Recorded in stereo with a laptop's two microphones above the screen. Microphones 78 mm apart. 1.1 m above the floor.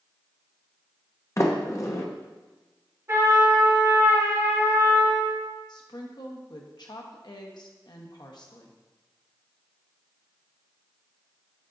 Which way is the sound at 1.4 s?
35° left (ahead or behind).